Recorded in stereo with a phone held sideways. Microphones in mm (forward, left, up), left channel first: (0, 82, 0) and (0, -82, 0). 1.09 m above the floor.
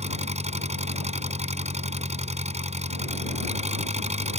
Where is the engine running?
40° right (ahead or behind).